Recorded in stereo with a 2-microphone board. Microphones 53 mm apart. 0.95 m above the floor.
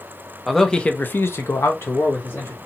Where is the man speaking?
Centre (ahead or behind), 0.7 m; by 2.6 s 45° left (ahead or behind), 1.3 m.